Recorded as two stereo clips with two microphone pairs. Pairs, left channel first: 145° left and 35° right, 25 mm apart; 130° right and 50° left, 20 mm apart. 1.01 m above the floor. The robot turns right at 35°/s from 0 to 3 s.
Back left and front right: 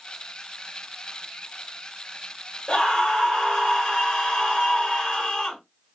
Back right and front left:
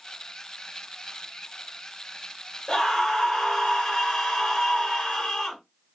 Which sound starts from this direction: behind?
A scream, at 2.7 s.